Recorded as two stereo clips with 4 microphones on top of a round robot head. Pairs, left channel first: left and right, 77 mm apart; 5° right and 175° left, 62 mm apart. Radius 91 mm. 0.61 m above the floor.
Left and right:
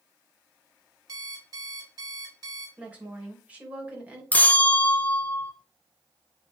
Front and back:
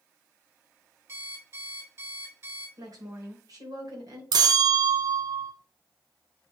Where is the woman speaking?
160° right, 3 m.